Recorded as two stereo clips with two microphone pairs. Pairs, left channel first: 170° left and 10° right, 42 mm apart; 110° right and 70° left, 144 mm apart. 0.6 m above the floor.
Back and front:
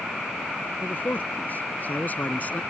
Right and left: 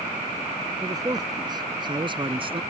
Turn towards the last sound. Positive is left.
turn(degrees=120)